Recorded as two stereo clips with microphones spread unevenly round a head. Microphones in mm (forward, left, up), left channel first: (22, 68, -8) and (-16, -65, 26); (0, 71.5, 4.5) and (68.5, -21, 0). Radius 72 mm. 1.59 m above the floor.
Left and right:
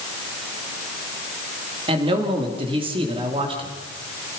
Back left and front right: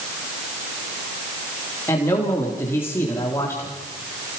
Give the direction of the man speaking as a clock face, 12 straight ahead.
5 o'clock.